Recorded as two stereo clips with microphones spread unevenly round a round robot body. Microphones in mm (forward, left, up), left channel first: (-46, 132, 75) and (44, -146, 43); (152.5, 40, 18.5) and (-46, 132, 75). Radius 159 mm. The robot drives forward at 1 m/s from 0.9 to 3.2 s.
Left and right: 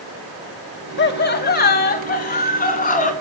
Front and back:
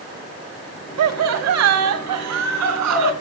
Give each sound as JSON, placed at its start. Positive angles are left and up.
{"t": 1.0, "sound": "laughter", "azimuth_deg": 165, "distance_m": 1.7}